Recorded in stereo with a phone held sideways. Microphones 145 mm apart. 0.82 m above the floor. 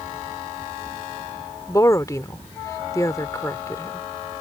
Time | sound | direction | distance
1.7 | a woman speaking | 20° left (ahead or behind) | ?